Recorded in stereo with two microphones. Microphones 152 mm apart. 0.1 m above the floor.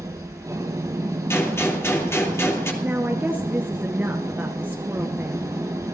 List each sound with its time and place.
0.0 s an engine running: 20° right (ahead or behind), 2 m
1.3 s a gunshot: 20° left (ahead or behind), 3 m
2.8 s a woman speaking: 10° right (ahead or behind), 1.3 m